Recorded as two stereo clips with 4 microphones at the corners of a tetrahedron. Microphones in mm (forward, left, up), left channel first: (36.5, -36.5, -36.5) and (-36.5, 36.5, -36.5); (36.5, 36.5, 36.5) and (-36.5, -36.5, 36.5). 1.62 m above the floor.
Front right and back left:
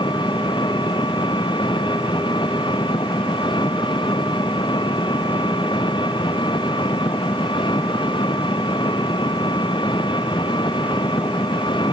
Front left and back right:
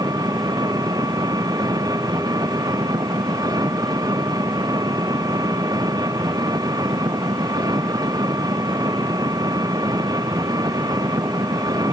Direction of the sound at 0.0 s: 85° right.